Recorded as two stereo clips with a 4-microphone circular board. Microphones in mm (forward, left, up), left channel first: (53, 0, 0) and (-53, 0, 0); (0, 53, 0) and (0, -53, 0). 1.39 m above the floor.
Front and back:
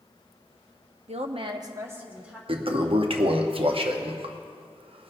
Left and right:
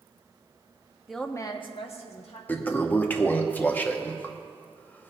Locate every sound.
1.1 s a woman speaking: 175° right, 0.9 m; by 2.4 s 100° left, 2 m
2.5 s a toilet flushing: 160° left, 0.7 m